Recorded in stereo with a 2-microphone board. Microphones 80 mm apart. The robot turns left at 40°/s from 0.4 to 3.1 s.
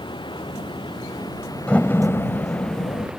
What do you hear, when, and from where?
0.0 s running water: 100° left; by 3.2 s 10° right
1.7 s a door slam: 165° left; by 3.1 s 110° left